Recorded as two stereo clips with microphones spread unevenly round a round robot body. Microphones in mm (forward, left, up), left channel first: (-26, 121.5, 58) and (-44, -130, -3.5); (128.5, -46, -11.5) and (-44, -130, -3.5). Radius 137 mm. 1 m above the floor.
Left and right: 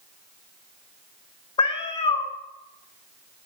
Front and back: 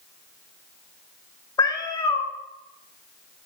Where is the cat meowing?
85° left, 1.0 m.